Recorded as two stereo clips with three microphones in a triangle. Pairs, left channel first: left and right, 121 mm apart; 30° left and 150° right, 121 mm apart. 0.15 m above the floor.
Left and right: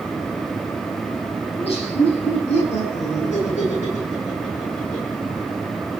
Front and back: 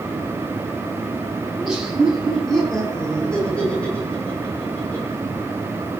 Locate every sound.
1.5 s laughter: 125° left, 8 m; by 5.2 s 100° left, 10 m